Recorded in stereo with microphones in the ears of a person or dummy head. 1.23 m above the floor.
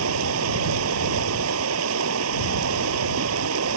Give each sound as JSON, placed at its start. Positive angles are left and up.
{"t": 0.0, "sound": "running water", "side_deg": -80}